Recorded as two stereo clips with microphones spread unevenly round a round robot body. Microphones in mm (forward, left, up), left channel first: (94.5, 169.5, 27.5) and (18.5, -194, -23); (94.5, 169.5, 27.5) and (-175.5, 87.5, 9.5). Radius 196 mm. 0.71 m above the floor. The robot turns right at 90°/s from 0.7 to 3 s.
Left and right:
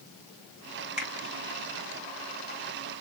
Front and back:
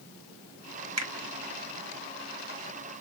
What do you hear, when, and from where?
1.0 s a finger snap: 170° left, 1.2 m; by 1.1 s 175° right, 1.2 m